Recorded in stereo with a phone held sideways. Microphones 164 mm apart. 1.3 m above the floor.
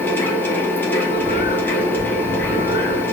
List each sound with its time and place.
0.0 s a machine running: 10° left (ahead or behind), 0.7 m
1.0 s a bird: 40° right (ahead or behind), 1.9 m